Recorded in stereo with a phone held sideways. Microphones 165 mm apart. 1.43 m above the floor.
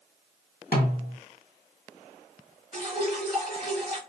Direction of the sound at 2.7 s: 30° right (ahead or behind).